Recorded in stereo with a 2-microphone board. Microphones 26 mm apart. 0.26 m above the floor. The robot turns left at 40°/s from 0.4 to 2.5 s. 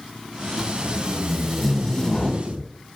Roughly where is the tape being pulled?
Right.